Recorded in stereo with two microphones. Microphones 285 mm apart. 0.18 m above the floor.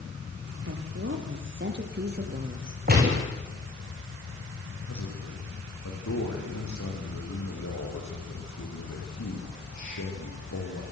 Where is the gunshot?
35° right (ahead or behind), 7 m.